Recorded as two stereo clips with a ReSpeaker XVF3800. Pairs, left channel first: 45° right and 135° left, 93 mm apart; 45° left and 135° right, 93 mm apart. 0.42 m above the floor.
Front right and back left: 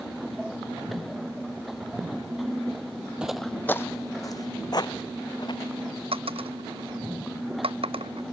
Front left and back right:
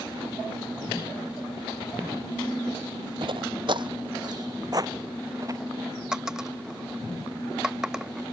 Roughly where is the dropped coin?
Behind left.